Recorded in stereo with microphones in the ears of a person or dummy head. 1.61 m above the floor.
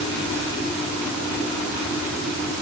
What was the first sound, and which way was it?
Only background noise.